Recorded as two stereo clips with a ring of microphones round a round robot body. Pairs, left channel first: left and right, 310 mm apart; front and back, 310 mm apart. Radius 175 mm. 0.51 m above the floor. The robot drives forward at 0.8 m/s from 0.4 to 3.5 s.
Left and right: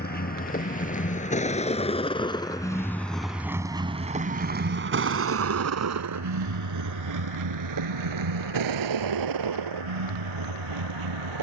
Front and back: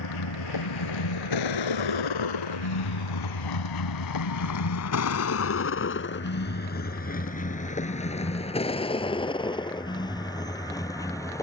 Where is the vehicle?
30° left; by 11.4 s 80° right.